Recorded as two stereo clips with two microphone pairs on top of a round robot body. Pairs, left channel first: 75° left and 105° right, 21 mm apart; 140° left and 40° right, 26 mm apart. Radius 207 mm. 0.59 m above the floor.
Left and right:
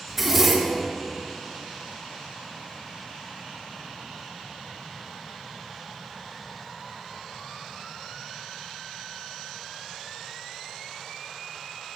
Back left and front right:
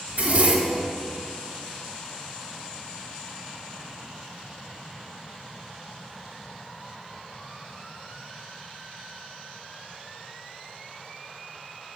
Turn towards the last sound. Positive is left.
turn(degrees=-20)